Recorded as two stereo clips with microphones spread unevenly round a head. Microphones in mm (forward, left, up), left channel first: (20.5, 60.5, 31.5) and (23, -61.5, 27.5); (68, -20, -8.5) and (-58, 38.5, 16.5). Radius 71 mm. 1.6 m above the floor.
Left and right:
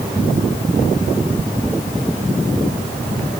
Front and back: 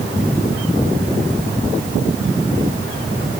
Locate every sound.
Only background noise.